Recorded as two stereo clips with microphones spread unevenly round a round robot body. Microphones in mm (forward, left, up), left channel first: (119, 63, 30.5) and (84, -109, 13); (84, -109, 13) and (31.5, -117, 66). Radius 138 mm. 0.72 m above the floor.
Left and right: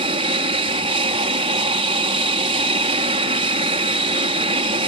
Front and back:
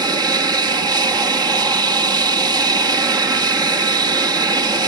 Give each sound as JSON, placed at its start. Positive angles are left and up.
{"t": 0.0, "sound": "an aircraft", "azimuth_deg": -130}